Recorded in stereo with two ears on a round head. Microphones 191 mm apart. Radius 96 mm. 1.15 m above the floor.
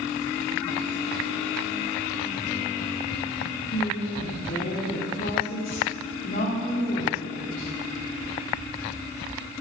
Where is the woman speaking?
40° left (ahead or behind), 3.5 m.